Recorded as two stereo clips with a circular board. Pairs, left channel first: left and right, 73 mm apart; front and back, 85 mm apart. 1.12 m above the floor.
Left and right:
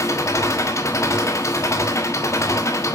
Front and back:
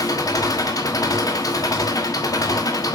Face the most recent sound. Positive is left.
turn(degrees=45)